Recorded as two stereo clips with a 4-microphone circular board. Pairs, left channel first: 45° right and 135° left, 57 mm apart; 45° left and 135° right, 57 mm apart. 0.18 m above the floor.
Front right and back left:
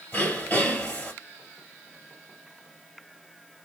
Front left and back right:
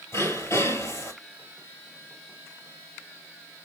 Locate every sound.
0.1 s throat clearing: 20° left, 2 m